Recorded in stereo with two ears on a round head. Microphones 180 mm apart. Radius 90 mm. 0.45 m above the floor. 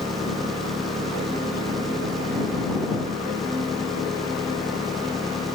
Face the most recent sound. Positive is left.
turn(degrees=0)  # may be behind; listen again after turning